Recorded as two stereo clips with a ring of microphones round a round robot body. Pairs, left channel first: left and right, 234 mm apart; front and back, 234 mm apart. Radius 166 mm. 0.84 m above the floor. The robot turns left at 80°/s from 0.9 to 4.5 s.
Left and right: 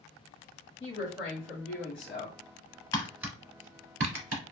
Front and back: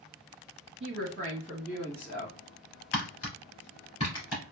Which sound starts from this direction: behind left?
A woman speaking, at 0.8 s.